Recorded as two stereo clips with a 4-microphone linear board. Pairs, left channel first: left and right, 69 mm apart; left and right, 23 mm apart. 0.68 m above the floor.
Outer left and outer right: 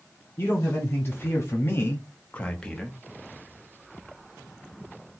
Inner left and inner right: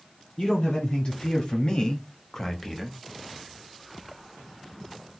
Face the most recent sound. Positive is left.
turn(degrees=5)  # may be behind; listen again after turning